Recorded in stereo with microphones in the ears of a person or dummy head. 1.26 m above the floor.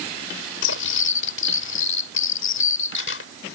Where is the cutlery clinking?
75° left (ahead or behind).